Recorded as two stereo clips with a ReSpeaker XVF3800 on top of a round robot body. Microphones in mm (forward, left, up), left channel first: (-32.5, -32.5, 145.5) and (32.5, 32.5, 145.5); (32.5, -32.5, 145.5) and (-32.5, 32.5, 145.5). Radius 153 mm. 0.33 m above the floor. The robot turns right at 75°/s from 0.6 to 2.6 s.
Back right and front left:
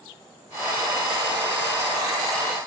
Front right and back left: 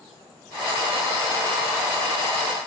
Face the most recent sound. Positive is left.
No sound to turn to.